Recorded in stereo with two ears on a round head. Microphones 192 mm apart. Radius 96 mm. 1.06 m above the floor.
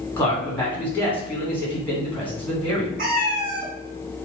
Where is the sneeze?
I don't hear a sneeze.